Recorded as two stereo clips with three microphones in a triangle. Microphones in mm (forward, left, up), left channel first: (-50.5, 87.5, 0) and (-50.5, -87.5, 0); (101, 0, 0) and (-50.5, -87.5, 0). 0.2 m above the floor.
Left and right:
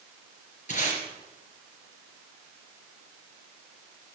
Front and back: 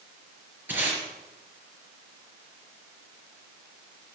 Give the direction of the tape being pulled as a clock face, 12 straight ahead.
8 o'clock.